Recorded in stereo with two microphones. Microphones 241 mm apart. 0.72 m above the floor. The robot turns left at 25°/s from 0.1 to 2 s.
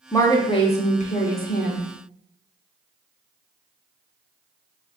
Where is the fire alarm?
I don't hear a fire alarm.